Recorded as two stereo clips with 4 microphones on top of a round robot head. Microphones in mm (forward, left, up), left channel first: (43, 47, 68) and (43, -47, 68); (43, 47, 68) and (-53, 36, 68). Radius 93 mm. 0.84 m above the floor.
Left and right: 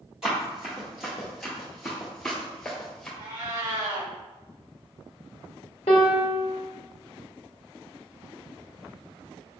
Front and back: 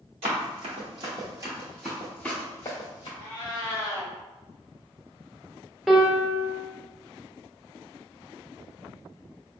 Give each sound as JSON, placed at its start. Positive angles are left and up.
{"t": 0.2, "sound": "running footsteps", "azimuth_deg": -175, "distance_m": 1.2}
{"t": 3.2, "sound": "a cat meowing", "azimuth_deg": -115, "distance_m": 1.9}
{"t": 5.9, "sound": "a piano", "azimuth_deg": 100, "distance_m": 0.5}